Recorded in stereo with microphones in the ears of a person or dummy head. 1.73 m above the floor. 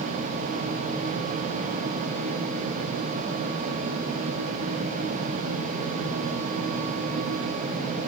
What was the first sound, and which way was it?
Only background noise.